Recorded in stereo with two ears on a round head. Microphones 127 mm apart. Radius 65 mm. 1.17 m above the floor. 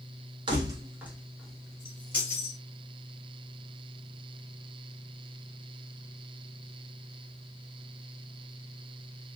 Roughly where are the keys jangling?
Right.